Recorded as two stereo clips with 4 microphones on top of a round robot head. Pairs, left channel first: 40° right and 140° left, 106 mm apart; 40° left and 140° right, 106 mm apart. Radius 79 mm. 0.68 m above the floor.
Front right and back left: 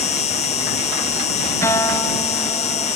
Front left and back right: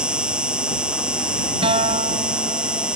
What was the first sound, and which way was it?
An insect, 60° right.